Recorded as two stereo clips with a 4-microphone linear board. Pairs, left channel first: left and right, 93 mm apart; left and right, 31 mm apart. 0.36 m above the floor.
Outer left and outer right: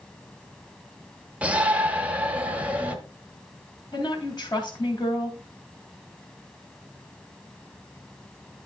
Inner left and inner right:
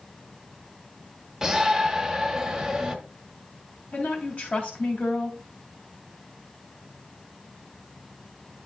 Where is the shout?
15° right (ahead or behind), 1.0 m.